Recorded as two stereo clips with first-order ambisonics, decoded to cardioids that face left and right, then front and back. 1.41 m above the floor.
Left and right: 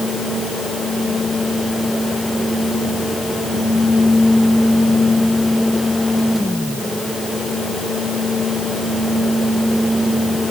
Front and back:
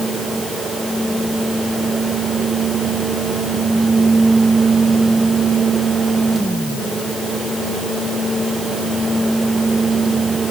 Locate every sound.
Only background noise.